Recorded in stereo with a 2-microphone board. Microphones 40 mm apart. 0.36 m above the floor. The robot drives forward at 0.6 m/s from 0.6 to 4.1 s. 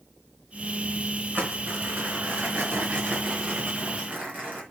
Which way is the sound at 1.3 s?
45° right (ahead or behind).